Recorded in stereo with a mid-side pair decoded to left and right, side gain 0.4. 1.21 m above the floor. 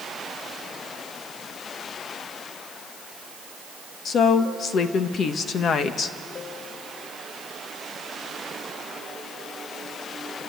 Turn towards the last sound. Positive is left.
turn(degrees=60)